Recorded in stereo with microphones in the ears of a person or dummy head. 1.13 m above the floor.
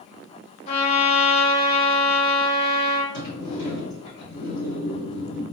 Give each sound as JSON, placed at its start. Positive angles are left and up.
{"t": 0.7, "sound": "a trumpet", "side_deg": 40, "distance_m": 0.7}
{"t": 3.1, "sound": "a sliding door", "side_deg": 65, "distance_m": 1.4}